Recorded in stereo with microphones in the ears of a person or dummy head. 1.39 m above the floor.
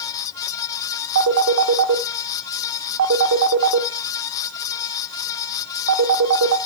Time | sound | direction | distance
1.1 | a phone ringing | 75° right (ahead or behind) | 1.1 m